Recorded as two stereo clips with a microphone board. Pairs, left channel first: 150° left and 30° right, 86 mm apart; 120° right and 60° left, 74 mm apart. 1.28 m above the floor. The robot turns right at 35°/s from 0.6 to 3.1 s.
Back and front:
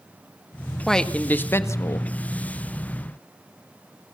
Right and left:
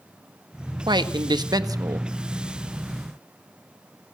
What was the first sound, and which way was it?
A man speaking, 65° left.